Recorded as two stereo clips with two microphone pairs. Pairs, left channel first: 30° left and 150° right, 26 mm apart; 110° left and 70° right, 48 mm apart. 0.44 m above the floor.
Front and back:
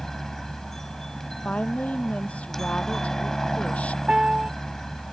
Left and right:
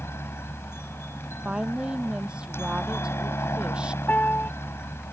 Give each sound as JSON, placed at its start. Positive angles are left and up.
{"t": 0.0, "sound": "a helicopter", "azimuth_deg": 105}
{"t": 1.4, "sound": "a woman speaking", "azimuth_deg": 0}
{"t": 4.1, "sound": "a piano", "azimuth_deg": 155}